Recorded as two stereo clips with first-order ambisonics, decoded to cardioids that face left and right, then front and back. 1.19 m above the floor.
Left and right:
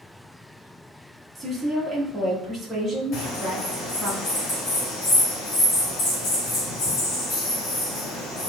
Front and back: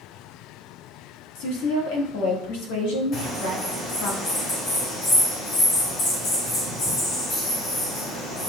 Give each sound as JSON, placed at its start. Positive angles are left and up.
{"t": 1.4, "sound": "a woman speaking", "azimuth_deg": -10, "distance_m": 1.4}
{"t": 3.1, "sound": "a bird", "azimuth_deg": 45, "distance_m": 1.9}